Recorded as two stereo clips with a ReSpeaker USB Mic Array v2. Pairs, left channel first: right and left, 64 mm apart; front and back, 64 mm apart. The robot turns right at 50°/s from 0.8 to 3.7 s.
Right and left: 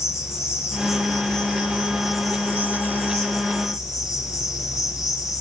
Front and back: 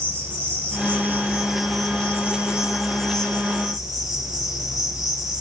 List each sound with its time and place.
0.0 s an insect: 135° right, 6.5 m; by 5.4 s 10° left, 6.5 m